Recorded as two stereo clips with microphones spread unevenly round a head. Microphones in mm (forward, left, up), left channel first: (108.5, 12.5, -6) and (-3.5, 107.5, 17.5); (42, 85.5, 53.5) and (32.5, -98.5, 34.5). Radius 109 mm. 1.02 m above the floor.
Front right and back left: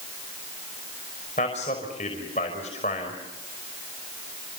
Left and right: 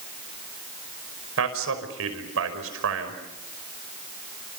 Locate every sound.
1.4 s a man speaking: 100° right, 5.5 m